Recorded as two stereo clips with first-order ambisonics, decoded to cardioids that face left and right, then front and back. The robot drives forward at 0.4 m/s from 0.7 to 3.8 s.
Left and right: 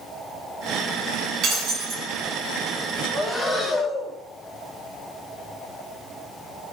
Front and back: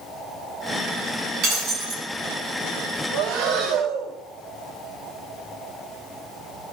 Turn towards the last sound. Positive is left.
turn(degrees=180)